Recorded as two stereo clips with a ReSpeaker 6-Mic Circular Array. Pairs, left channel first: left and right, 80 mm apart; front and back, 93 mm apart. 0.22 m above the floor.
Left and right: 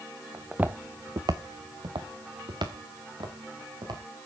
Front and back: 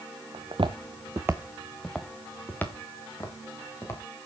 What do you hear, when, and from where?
0.3 s footsteps: 175° right, 1.4 m; by 4.0 s 60° right, 4.5 m